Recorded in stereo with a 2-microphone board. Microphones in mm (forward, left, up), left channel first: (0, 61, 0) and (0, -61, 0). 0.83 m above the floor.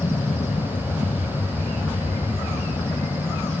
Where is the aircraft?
45° left (ahead or behind).